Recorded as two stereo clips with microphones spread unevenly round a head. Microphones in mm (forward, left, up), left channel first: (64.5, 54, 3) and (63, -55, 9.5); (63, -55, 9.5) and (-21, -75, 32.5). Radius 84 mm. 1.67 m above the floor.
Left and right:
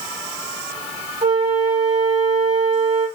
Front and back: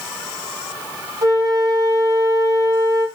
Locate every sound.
1.2 s a flute: 120° right, 1.4 m